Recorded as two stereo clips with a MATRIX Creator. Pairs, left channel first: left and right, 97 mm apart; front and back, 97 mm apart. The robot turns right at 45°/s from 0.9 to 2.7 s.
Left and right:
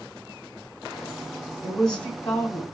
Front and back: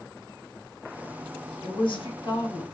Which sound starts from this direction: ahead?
A woman speaking, at 1.6 s.